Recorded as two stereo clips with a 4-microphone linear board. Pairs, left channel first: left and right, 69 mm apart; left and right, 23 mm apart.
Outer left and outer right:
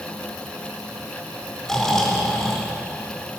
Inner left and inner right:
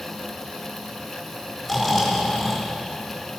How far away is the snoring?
About 4 m.